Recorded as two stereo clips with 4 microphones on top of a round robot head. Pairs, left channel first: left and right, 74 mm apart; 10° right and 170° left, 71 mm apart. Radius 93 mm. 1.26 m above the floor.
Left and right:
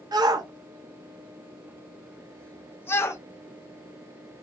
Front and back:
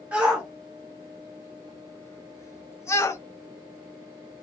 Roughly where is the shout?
Behind right.